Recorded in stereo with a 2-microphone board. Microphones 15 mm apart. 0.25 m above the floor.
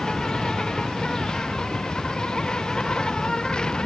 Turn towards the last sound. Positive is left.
turn(degrees=40)  # may be behind; listen again after turning